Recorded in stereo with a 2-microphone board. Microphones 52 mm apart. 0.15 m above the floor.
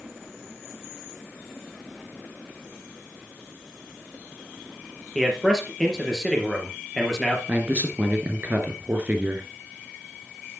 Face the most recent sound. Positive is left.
turn(degrees=-30)  # may be behind; listen again after turning